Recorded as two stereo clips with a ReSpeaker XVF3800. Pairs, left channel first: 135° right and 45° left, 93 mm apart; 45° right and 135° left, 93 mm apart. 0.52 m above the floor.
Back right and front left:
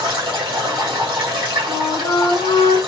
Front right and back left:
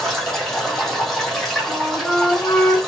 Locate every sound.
0.0 s running water: 40° left, 1.7 m
1.7 s a flute: 125° right, 1.3 m